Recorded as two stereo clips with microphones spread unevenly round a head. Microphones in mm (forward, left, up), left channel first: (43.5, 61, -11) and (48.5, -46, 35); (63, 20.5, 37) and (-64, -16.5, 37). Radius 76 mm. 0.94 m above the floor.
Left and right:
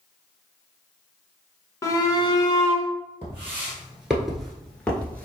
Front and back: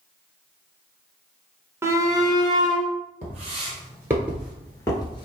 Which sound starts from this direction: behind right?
Footsteps, at 3.2 s.